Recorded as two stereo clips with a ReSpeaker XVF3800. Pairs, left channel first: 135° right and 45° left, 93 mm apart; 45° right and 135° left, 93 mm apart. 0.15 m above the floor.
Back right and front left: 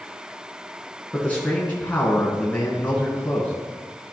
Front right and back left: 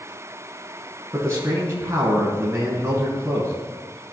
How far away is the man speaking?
About 1.3 m.